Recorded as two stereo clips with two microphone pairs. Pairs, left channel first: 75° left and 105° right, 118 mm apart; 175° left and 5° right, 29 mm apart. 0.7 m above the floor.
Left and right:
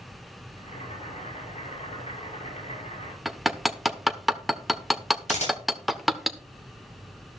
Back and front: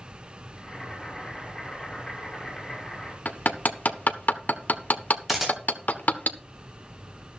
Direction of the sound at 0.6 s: 100° left.